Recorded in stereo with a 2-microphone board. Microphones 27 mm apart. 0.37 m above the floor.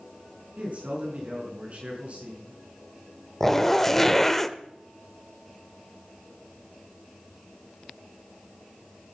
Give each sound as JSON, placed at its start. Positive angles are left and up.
{"t": 0.6, "sound": "a man speaking", "side_deg": -45, "distance_m": 4.0}
{"t": 3.4, "sound": "a zipper", "side_deg": 10, "distance_m": 0.7}